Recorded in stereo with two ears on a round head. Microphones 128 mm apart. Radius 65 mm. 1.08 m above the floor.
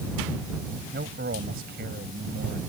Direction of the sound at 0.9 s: 80° right.